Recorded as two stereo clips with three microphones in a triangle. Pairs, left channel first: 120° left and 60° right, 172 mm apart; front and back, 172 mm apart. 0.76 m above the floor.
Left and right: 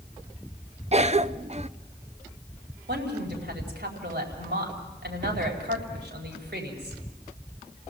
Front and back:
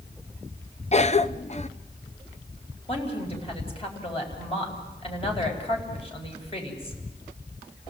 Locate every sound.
0.9 s a cough: 30° right, 0.6 m
2.9 s a woman speaking: 55° right, 4.5 m